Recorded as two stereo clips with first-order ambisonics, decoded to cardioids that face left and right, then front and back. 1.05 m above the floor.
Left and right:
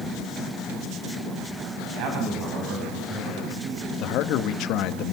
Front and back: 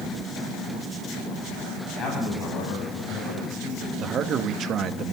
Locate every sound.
1.9 s a man speaking: 60° right, 8.5 m; by 3.9 s 50° right, 10 m
4.0 s a man speaking: 125° left, 1.7 m